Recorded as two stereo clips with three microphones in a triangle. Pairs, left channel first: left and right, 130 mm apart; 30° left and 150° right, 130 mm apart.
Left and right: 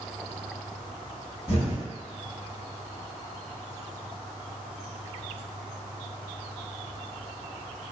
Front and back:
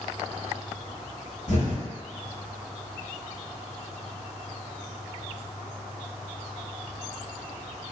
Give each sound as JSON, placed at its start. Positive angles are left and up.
{"t": 1.5, "sound": "an explosion", "azimuth_deg": 50, "distance_m": 0.8}